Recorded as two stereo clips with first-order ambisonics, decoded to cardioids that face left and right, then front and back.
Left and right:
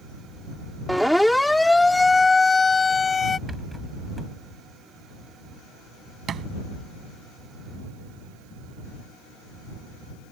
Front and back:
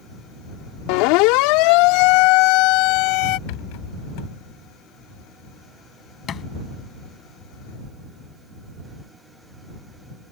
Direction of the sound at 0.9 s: Straight ahead.